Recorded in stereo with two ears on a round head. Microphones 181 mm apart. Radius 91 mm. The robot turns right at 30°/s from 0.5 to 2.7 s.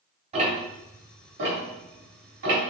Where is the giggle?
No giggle in this recording.